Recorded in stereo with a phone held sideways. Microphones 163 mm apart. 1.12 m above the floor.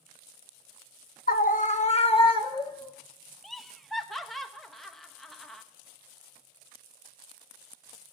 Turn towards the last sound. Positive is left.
turn(degrees=0)  # may be behind; listen again after turning